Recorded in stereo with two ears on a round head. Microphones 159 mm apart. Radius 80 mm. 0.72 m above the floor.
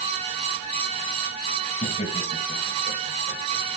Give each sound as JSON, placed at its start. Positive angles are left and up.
{"t": 1.8, "sound": "laughter", "side_deg": 40, "distance_m": 4.5}